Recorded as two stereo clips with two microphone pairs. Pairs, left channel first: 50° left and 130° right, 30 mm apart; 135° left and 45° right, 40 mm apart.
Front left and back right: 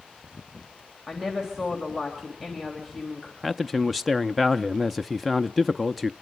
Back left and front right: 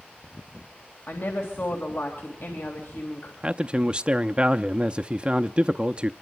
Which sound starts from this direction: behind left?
A woman speaking, at 1.1 s.